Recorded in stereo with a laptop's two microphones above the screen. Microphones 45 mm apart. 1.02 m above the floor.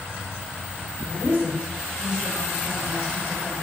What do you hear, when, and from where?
1.0 s a woman speaking: 30° right (ahead or behind), 3.5 m; by 3.5 s 5° right (ahead or behind), 4 m